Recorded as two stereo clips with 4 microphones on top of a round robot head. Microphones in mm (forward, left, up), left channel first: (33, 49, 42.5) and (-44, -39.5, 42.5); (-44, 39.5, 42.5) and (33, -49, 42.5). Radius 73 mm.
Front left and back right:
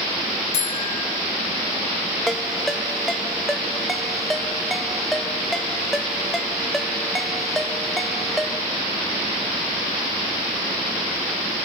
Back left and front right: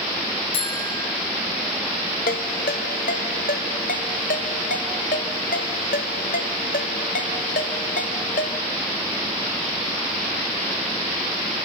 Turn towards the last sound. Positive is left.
turn(degrees=140)